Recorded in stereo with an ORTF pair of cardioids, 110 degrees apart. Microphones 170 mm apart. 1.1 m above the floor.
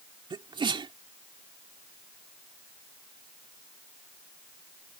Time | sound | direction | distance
0.3 | a sneeze | 30° right | ?